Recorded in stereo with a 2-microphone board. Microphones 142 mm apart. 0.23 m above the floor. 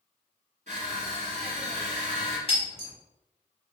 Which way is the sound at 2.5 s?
45° left (ahead or behind).